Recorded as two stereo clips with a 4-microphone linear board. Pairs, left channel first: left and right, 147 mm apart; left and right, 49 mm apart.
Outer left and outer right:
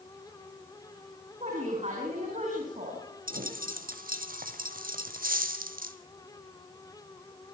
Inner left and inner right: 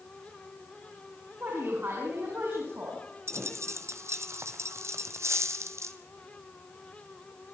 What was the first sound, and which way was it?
A woman speaking, 50° right (ahead or behind).